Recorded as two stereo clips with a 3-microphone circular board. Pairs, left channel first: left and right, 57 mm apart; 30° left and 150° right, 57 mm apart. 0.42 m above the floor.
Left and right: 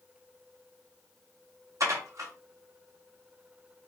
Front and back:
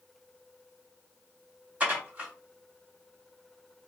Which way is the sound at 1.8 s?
85° right.